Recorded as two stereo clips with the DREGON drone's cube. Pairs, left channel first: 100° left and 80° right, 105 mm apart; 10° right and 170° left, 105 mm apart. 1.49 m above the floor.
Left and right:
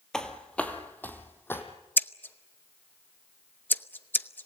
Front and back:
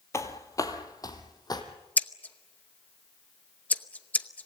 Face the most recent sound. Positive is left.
turn(degrees=45)